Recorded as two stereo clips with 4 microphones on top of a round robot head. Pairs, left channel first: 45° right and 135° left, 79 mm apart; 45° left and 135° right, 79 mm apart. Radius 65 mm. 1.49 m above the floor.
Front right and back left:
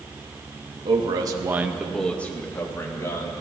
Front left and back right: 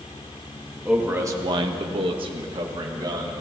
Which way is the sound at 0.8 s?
150° left.